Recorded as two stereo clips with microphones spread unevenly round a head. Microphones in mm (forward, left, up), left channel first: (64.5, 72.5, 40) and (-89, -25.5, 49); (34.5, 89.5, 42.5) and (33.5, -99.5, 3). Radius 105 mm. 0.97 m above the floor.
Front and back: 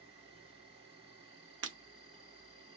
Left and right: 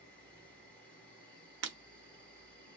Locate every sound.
0.0 s an insect: 175° right, 1.8 m
1.6 s breaking glass: 130° right, 0.8 m